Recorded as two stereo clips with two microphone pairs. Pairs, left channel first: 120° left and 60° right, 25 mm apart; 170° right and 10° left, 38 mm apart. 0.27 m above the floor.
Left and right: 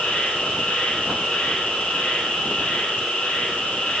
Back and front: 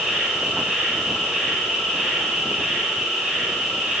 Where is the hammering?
No hammering in this recording.